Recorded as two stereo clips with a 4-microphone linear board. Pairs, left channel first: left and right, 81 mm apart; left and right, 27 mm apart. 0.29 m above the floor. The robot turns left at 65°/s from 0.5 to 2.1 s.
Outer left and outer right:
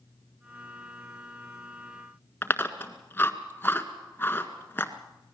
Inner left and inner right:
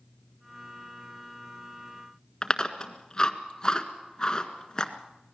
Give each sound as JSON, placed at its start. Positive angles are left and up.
{"t": 2.4, "sound": "chewing", "side_deg": 25, "distance_m": 1.6}